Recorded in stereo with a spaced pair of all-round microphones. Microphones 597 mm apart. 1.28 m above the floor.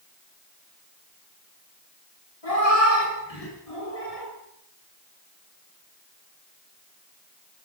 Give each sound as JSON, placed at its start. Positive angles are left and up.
{"t": 2.4, "sound": "a cat meowing", "side_deg": 70, "distance_m": 6.5}